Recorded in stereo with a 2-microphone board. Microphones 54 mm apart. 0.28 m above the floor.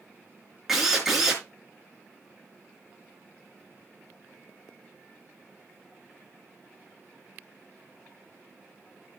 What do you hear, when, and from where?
0.7 s a drill: 5° right (ahead or behind), 4 m